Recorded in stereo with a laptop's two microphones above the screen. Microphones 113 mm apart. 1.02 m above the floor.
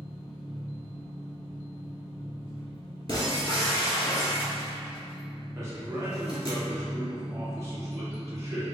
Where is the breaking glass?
35° left (ahead or behind), 1.6 m.